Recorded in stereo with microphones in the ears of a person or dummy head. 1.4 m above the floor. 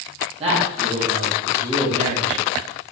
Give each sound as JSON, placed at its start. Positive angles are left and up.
{"t": 0.4, "sound": "a man speaking", "side_deg": -35, "distance_m": 2.0}